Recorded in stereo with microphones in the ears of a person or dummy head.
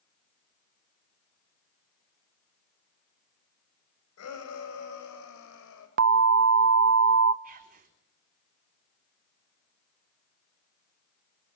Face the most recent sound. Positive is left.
turn(degrees=-45)  # may be behind; listen again after turning